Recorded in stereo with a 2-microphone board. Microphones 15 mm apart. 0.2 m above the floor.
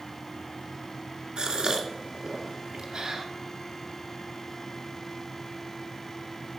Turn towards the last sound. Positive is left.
turn(degrees=-55)  # may be behind; listen again after turning